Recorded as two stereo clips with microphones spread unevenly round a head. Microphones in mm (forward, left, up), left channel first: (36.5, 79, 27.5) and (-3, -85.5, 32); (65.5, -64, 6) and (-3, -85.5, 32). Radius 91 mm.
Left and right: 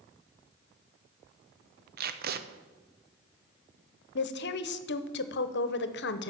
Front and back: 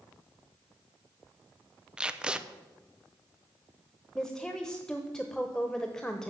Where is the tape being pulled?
75° right, 0.8 m.